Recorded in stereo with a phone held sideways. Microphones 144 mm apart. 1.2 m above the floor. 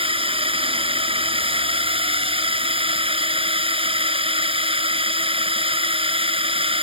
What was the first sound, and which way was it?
A drone, 40° right (ahead or behind).